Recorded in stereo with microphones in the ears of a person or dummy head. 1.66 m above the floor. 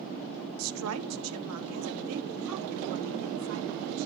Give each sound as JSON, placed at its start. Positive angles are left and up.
{"t": 0.6, "sound": "a woman speaking", "side_deg": -75, "distance_m": 0.9}